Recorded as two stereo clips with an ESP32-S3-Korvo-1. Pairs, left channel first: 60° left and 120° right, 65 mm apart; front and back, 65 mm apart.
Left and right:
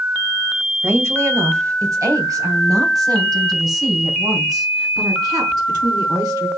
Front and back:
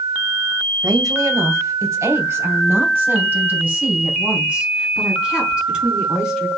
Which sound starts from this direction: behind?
A woman speaking, at 0.8 s.